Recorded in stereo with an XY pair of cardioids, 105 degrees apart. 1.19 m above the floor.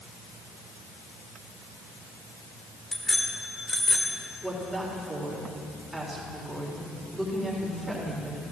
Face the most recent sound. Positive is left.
turn(degrees=-10)